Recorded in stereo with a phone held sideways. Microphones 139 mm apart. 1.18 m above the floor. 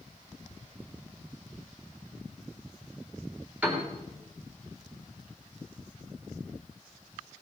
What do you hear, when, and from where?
3.6 s a piano: 10° right (ahead or behind), 3 m